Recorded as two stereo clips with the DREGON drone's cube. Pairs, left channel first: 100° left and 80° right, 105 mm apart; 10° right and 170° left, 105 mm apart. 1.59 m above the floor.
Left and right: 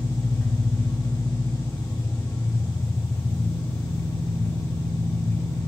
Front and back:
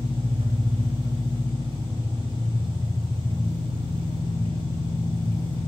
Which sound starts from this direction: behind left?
An engine running, at 0.0 s.